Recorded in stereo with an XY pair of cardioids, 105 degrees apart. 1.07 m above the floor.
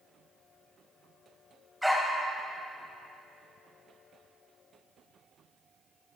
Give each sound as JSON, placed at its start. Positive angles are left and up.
{"t": 1.8, "sound": "a dog barking", "azimuth_deg": 0, "distance_m": 3.0}